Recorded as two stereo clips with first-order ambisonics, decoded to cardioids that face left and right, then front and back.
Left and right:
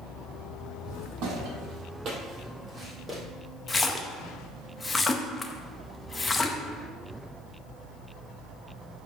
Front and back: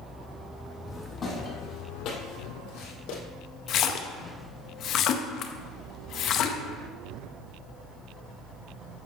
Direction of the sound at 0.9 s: 80° right.